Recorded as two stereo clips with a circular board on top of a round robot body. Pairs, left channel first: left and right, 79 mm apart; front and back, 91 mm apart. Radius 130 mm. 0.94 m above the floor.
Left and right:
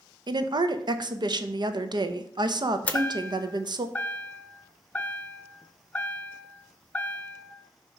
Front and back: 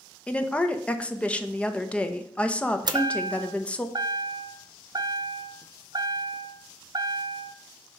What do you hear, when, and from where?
0.3 s a woman speaking: 75° right, 0.7 m
2.9 s a chime: 155° left, 0.7 m